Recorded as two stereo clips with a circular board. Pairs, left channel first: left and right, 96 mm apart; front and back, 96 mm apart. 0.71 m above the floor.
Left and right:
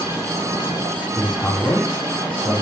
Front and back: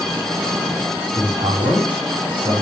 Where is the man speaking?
160° left, 5.5 m.